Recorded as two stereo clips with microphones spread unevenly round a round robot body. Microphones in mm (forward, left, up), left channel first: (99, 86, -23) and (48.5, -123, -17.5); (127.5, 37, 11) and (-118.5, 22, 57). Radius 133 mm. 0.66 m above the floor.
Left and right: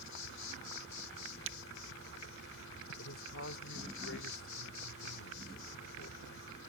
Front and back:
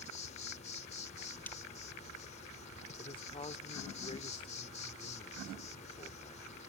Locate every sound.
0.0 s an insect: 60° left
1.5 s breaking glass: 80° right
3.0 s a man speaking: 70° left